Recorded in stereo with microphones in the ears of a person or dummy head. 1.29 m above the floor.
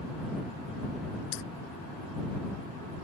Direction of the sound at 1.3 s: 65° left (ahead or behind).